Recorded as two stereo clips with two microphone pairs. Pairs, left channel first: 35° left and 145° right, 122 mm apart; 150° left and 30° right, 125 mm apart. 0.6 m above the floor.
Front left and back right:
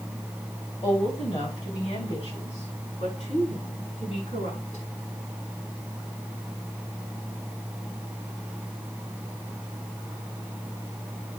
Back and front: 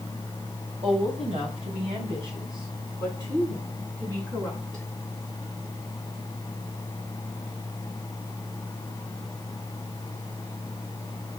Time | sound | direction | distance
0.8 | a woman speaking | straight ahead | 3 m